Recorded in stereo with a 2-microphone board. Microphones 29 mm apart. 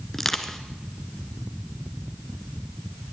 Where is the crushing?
10° left (ahead or behind), 1.4 m.